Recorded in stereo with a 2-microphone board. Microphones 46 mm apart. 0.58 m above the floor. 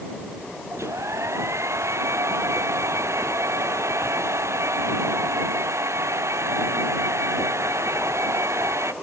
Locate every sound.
0.7 s a hair dryer: 90° right